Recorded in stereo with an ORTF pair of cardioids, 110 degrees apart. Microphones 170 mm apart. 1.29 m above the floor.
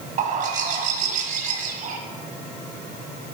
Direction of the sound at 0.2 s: 50° right.